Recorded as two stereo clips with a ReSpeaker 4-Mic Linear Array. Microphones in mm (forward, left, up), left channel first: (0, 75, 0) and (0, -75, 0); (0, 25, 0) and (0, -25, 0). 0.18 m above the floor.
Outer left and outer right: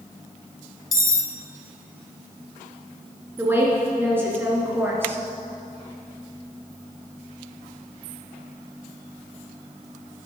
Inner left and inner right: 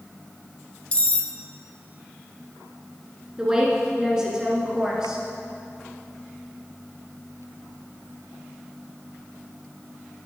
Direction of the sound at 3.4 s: 15° right (ahead or behind).